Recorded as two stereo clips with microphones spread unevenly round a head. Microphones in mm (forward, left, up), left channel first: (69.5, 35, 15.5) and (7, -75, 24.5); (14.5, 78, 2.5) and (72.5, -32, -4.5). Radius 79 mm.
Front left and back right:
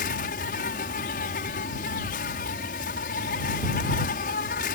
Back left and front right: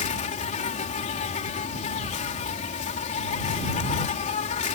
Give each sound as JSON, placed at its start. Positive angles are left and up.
{"t": 0.0, "sound": "an insect", "azimuth_deg": 95}